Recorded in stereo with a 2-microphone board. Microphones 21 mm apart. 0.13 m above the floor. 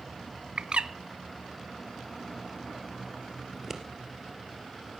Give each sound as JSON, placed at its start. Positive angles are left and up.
{"t": 0.6, "sound": "a bird", "side_deg": -60, "distance_m": 0.5}
{"t": 3.5, "sound": "scissors", "side_deg": -20, "distance_m": 2.5}